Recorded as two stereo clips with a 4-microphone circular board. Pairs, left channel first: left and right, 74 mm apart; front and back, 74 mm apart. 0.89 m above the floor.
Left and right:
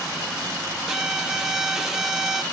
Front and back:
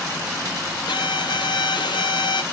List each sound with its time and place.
0.9 s a violin: 5° right, 0.6 m